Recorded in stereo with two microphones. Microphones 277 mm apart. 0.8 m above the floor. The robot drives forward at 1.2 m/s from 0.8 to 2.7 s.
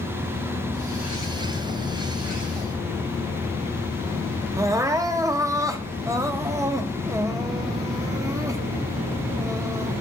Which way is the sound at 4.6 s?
10° right (ahead or behind).